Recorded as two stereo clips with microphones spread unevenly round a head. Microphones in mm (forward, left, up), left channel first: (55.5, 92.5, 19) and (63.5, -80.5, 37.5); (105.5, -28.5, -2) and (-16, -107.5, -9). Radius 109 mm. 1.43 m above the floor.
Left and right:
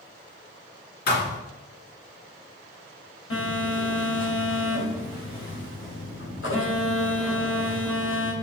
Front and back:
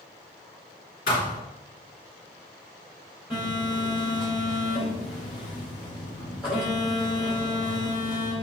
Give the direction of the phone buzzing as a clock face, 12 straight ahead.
8 o'clock.